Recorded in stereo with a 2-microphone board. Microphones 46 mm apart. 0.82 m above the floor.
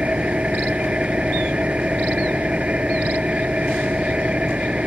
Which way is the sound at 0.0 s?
25° right (ahead or behind).